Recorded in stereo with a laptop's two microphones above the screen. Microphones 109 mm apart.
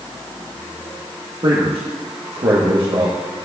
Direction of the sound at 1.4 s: 55° right (ahead or behind).